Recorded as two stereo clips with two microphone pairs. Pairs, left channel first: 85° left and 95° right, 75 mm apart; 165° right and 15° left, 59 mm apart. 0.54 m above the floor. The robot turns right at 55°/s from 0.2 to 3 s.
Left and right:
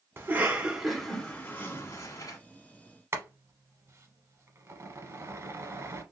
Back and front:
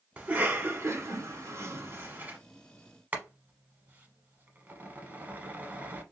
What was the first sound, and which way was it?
A cough, 45° right.